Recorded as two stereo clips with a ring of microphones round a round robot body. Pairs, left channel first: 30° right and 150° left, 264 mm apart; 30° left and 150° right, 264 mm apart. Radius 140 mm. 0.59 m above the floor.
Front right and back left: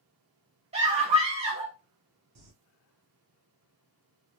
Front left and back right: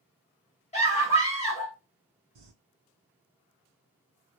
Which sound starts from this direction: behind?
Crumpling, at 2.4 s.